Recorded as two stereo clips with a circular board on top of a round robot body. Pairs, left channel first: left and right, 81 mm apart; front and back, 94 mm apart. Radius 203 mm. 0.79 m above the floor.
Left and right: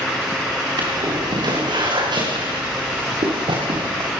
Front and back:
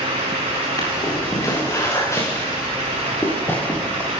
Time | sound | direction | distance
0.8 | footsteps | 55° right | 8 m